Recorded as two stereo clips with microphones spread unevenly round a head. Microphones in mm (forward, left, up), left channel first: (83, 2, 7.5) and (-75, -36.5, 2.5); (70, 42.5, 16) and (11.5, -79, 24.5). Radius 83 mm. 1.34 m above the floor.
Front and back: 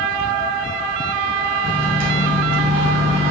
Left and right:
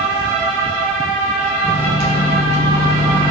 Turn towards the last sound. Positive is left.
turn(degrees=-170)